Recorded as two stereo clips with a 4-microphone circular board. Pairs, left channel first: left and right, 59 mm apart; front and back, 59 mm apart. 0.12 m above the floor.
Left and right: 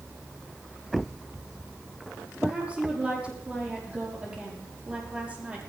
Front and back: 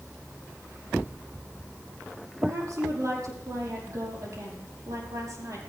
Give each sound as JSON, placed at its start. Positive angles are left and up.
{"t": 2.4, "sound": "a woman speaking", "azimuth_deg": -160, "distance_m": 5.5}